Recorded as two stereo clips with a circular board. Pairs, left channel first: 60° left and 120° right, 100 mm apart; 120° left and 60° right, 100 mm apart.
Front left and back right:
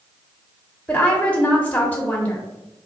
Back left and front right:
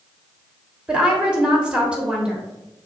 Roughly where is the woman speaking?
Ahead.